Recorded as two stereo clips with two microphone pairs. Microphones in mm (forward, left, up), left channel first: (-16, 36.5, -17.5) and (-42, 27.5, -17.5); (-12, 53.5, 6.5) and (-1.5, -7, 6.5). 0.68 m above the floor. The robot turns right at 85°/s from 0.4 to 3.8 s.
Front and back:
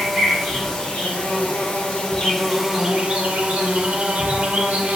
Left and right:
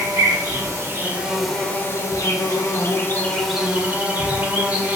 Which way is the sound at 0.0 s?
75° right.